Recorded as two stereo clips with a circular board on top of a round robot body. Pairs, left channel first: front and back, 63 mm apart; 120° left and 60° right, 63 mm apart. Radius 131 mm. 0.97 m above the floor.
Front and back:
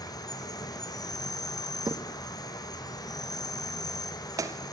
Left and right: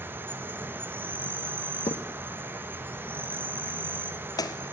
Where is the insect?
Straight ahead, 1.1 m.